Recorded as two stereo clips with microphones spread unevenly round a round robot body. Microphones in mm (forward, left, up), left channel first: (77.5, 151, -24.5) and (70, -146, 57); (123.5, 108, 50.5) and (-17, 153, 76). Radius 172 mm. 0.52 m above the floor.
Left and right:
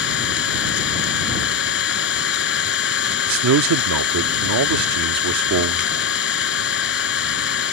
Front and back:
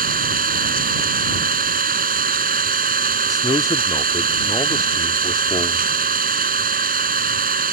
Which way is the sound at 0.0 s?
150° left.